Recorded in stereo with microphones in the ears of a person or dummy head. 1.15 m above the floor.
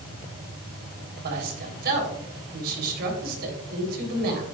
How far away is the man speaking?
About 3.5 m.